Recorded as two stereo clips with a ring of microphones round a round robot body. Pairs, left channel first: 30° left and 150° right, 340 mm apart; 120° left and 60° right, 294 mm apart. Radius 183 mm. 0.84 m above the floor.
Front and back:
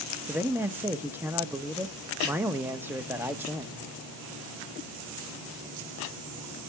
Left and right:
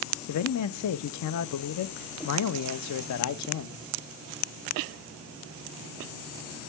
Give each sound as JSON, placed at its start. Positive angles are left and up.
{"t": 0.3, "sound": "a man speaking", "azimuth_deg": 125, "distance_m": 0.6}